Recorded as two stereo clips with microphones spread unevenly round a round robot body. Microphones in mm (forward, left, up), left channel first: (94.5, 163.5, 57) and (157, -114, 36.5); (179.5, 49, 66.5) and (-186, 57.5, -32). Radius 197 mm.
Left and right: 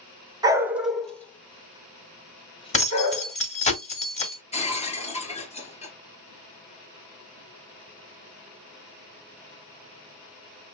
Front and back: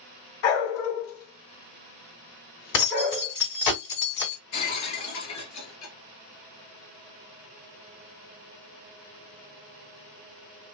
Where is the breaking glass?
35° left, 1.6 m.